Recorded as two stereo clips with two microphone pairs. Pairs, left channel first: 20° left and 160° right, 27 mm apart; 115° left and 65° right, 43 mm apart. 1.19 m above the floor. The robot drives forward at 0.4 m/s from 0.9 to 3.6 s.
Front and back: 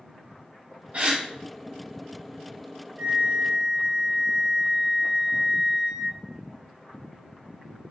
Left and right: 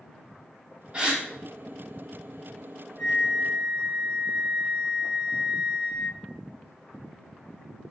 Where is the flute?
135° right, 1.0 m; by 6.2 s 150° right, 1.1 m.